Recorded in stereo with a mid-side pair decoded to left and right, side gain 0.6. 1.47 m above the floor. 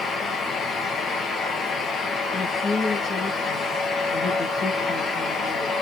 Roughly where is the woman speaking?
Ahead left.